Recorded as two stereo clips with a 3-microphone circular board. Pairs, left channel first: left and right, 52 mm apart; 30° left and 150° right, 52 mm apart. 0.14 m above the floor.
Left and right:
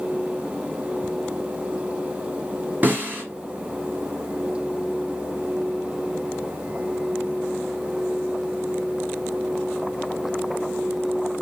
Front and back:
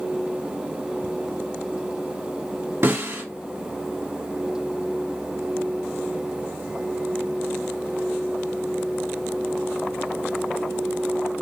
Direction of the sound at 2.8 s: 135° right.